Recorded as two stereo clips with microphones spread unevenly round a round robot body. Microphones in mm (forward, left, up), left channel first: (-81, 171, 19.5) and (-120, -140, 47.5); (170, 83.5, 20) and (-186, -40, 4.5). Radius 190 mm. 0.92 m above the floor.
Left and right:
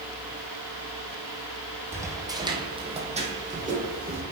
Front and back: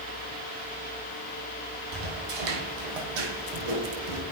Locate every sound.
1.9 s footsteps: straight behind, 2 m; by 4.2 s 155° right, 3 m